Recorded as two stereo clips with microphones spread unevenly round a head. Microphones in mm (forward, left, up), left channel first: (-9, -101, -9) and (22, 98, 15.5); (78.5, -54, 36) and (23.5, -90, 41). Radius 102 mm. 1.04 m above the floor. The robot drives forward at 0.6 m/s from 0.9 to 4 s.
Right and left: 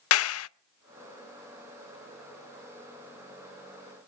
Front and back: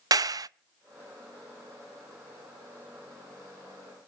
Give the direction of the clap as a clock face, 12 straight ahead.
4 o'clock.